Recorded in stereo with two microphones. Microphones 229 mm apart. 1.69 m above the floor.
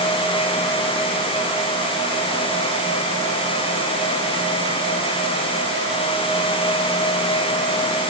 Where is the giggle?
No giggle in this recording.